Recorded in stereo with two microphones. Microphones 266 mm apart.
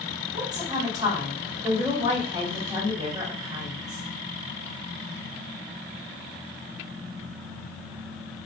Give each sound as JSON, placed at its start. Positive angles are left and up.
{"t": 0.3, "sound": "a woman speaking", "side_deg": -15, "distance_m": 1.7}